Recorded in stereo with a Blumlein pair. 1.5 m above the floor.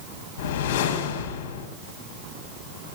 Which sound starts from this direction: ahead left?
A whoosh, at 0.4 s.